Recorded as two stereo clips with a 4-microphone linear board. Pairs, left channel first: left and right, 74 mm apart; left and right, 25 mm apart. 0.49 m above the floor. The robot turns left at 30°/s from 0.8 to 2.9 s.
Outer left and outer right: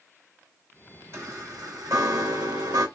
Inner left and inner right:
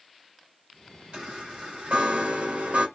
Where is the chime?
40° right, 3 m; by 2.9 s 90° right, 3 m.